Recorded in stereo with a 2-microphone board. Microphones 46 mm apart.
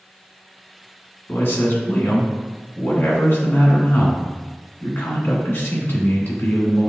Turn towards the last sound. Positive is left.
turn(degrees=55)  # may be behind; listen again after turning